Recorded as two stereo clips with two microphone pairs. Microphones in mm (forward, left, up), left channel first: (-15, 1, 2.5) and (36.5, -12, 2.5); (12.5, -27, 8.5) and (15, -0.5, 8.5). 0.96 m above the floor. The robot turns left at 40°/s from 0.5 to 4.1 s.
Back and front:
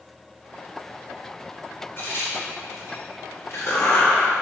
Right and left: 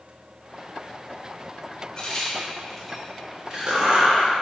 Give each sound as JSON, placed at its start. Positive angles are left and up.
{"t": 2.0, "sound": "a crack", "azimuth_deg": -155, "distance_m": 3.0}